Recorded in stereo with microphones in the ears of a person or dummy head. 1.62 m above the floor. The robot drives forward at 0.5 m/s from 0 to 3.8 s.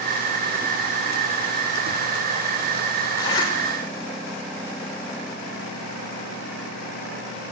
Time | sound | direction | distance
3.2 | a zipper | 20° left (ahead or behind) | 5.5 m